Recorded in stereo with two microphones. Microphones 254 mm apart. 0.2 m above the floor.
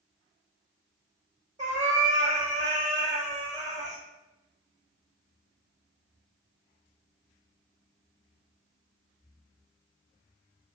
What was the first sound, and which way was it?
A cat meowing, 30° right (ahead or behind).